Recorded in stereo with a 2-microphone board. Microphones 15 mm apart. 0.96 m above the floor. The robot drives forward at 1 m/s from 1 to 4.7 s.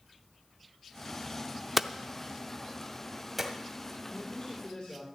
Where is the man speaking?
75° left (ahead or behind), 3 m; by 5.0 s 80° left, 3 m.